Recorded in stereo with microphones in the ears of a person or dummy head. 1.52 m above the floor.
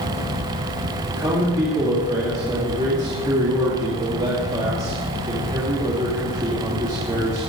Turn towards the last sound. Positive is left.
turn(degrees=-25)  # may be behind; listen again after turning